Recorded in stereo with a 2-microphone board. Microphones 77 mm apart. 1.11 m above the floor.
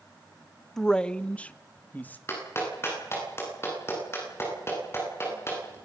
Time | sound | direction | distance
0.8 | a man speaking | 5° left (ahead or behind) | 0.6 m
2.3 | a clap | 35° left (ahead or behind) | 9.5 m